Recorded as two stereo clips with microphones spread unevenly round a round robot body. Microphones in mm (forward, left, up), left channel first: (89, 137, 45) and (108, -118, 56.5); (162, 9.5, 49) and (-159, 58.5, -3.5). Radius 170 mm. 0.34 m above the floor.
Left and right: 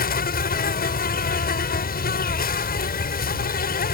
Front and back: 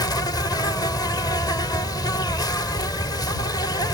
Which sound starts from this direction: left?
An insect, at 0.0 s.